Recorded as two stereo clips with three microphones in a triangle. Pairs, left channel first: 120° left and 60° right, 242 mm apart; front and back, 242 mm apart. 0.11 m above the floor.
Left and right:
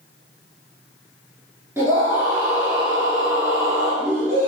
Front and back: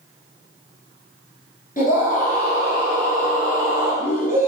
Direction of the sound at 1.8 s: 15° left.